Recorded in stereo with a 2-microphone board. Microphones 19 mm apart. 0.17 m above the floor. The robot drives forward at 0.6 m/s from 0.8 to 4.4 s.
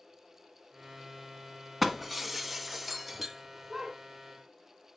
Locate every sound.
1.8 s breaking glass: 5° right (ahead or behind), 0.8 m